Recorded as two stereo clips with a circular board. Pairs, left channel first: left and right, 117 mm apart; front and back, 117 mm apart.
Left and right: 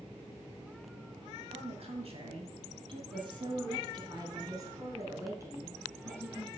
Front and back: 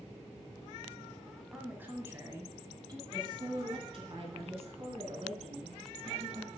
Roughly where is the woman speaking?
Right.